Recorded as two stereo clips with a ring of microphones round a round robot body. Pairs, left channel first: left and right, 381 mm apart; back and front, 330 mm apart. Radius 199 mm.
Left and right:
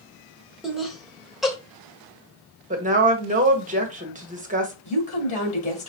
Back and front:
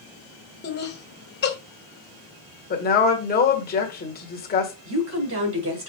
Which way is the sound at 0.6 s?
Straight behind.